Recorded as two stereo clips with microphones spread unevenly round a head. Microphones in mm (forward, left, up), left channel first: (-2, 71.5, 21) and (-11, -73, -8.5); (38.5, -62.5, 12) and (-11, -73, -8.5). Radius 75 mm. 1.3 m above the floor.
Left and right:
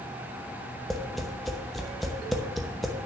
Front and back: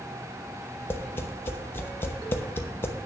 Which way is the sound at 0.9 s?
Straight ahead.